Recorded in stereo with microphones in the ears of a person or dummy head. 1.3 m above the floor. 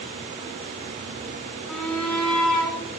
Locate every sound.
1.7 s a shout: 5° left (ahead or behind), 5 m